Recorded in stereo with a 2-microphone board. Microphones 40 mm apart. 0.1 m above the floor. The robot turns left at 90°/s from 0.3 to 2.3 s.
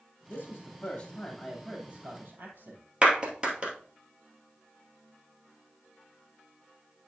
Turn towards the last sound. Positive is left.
turn(degrees=-25)  # may be behind; listen again after turning